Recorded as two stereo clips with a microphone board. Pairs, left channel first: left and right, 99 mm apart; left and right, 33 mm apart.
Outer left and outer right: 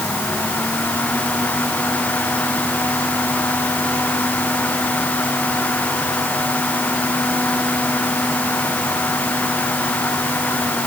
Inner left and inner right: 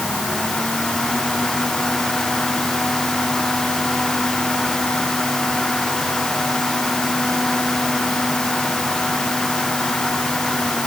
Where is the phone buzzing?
I don't hear a phone buzzing.